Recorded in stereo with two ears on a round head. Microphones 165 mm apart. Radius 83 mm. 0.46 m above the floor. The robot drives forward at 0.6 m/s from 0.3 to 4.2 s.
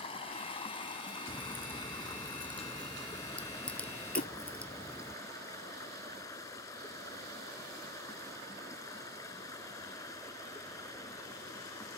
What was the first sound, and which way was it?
Running water, 30° left (ahead or behind).